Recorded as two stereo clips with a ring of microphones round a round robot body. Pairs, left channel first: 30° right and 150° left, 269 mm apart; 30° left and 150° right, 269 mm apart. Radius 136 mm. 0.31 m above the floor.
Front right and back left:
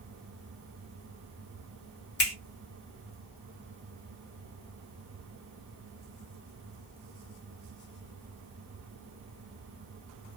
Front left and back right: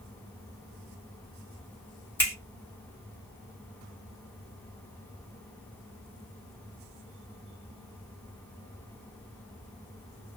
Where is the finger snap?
50° right, 1.7 m.